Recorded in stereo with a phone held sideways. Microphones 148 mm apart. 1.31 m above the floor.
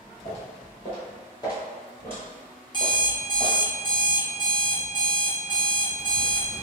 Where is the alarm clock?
30° left (ahead or behind), 0.9 m.